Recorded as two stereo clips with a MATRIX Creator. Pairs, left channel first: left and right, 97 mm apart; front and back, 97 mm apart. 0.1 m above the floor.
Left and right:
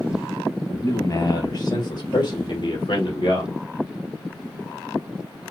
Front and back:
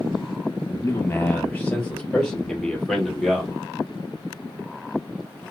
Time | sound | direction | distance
0.7 | a man speaking | 50° left | 2 m